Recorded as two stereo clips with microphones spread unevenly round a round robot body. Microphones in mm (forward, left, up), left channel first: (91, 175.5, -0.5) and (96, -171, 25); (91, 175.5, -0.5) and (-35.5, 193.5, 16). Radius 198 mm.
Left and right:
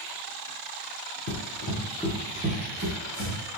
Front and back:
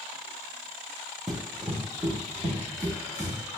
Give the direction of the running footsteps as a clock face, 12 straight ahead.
9 o'clock.